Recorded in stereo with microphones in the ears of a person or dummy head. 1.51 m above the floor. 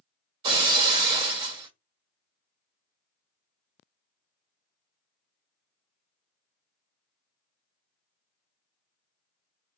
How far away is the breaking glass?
About 1.4 m.